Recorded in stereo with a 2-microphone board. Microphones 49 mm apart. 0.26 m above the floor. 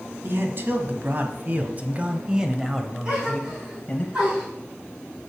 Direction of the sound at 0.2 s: 50° right (ahead or behind).